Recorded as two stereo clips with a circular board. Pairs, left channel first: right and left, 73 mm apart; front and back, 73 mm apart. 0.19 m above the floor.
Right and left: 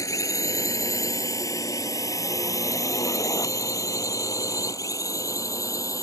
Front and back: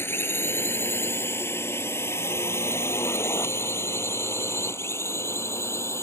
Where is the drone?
55° right; by 6.0 s 50° right.